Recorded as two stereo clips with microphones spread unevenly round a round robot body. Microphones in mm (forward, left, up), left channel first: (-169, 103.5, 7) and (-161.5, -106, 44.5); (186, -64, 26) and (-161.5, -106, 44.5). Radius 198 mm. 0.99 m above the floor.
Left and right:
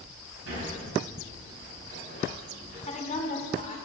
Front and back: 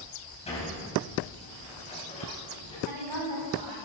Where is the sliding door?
65° right, 5 m.